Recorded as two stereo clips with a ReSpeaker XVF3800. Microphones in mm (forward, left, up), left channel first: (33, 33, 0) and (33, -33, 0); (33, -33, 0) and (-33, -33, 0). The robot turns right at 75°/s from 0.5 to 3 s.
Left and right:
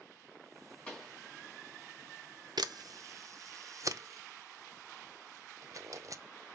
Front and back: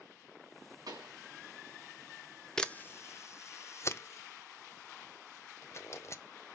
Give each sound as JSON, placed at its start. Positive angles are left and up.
{"t": 0.9, "sound": "a pop", "azimuth_deg": 160, "distance_m": 2.5}
{"t": 2.6, "sound": "a camera shutter", "azimuth_deg": -80, "distance_m": 0.6}